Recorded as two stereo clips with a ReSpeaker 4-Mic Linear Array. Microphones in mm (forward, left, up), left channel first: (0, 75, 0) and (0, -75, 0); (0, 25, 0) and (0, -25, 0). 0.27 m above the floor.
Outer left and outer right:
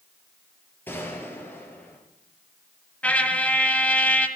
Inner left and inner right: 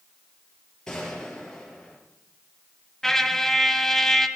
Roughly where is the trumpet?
Centre.